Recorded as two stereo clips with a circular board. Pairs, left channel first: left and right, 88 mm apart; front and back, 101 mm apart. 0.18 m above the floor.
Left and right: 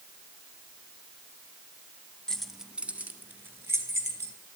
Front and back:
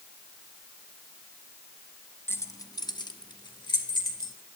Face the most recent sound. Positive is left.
turn(degrees=-30)